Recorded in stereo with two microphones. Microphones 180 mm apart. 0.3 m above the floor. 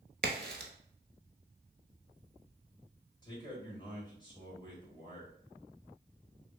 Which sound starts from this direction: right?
A crack, at 0.2 s.